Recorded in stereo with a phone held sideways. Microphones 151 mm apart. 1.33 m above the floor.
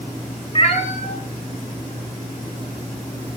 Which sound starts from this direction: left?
A cat meowing, at 0.6 s.